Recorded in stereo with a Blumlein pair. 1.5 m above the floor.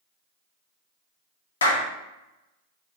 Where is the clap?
70° left, 0.7 m.